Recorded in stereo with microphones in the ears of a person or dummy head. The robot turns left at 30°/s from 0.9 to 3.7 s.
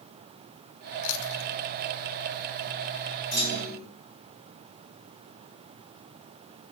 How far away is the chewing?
About 1.0 m.